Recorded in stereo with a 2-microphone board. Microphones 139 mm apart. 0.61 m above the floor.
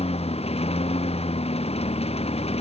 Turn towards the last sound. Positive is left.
turn(degrees=45)  # may be behind; listen again after turning